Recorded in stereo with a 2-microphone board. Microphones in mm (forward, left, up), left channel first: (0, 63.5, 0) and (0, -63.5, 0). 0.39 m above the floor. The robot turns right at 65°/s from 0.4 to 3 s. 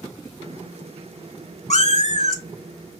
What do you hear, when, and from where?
1.7 s a cat meowing: 75° left, 0.5 m; by 2.4 s 120° left, 0.5 m